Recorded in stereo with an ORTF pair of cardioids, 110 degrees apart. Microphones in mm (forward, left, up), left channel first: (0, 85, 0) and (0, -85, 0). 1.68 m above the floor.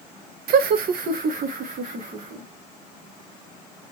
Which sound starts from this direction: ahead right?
Laughter, at 0.5 s.